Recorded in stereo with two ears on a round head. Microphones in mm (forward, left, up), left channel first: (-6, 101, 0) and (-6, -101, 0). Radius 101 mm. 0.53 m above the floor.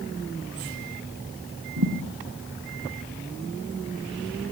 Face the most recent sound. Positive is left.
turn(degrees=-65)  # may be behind; listen again after turning